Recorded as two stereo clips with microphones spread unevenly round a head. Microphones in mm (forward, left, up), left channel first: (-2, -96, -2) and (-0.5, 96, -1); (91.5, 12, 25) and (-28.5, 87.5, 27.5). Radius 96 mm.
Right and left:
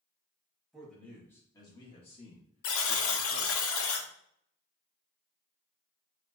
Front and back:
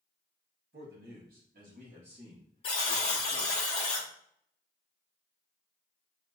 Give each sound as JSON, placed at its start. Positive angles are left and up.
{"t": 0.7, "sound": "a man speaking", "azimuth_deg": 180, "distance_m": 1.9}
{"t": 2.6, "sound": "a buzzer", "azimuth_deg": -95, "distance_m": 0.9}